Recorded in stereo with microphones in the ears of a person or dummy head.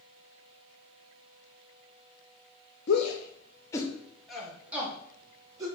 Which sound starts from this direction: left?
A shout, at 2.9 s.